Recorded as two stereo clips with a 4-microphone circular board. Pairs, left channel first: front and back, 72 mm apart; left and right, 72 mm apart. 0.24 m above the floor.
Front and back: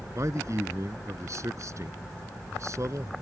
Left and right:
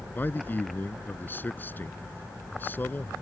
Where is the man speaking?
150° left.